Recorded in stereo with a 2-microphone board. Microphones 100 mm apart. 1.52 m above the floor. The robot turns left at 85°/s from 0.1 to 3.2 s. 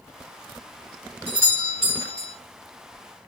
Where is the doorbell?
40° left, 1.3 m; by 2.4 s 55° right, 1.3 m.